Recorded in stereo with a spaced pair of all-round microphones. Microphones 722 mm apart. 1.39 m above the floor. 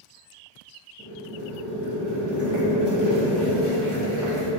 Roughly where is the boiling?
Left.